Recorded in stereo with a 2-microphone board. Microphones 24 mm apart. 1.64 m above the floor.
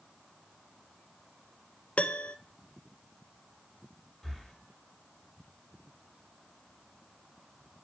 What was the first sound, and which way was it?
A piano, 65° left (ahead or behind).